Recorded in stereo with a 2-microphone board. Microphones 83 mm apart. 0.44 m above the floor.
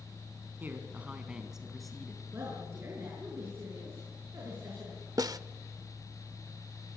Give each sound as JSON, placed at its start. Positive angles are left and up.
{"t": 0.6, "sound": "a man speaking", "side_deg": -25, "distance_m": 3.5}
{"t": 2.3, "sound": "a woman speaking", "side_deg": -30, "distance_m": 6.5}
{"t": 5.2, "sound": "a snare drum", "side_deg": -50, "distance_m": 0.6}